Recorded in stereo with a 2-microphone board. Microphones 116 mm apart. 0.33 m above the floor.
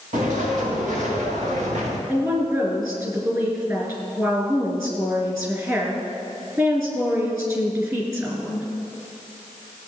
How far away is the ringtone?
I don't hear a ringtone.